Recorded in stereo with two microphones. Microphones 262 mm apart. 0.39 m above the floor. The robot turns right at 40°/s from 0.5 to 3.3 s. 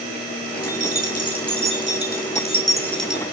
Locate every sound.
0.6 s keys jangling: 75° left (ahead or behind), 3.5 m; by 3.2 s 5° right (ahead or behind), 3.5 m